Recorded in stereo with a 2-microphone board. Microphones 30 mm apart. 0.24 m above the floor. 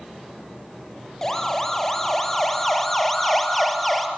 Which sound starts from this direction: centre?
A siren, at 1.2 s.